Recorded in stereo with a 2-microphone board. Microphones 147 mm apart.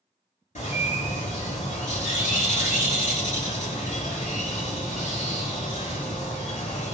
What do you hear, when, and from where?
0.6 s a bird: 55° left (ahead or behind), 1.7 m